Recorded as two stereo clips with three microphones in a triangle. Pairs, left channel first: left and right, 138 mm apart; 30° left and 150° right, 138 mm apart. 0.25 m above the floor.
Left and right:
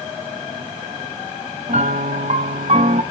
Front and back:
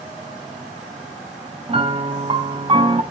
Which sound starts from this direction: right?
A piano, at 1.7 s.